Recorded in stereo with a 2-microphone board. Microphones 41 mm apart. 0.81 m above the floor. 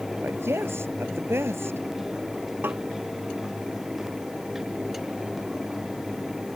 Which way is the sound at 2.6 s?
60° right (ahead or behind).